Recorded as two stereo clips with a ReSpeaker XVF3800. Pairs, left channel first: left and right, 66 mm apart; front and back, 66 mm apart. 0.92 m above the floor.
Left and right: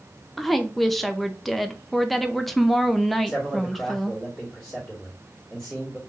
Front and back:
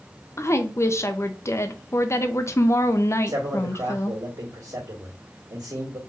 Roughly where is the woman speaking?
Ahead.